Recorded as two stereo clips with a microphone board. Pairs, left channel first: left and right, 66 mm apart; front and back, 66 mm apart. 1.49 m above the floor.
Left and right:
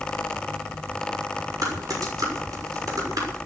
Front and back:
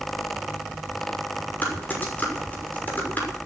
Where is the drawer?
I don't hear a drawer.